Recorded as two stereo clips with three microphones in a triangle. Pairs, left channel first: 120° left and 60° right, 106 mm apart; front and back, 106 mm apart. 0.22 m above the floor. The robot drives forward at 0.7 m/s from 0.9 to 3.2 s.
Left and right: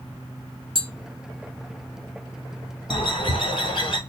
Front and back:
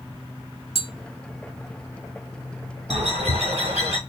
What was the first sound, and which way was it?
Tapping, 25° right.